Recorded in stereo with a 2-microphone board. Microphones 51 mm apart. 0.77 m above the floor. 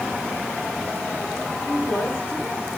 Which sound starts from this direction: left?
A woman speaking, at 1.6 s.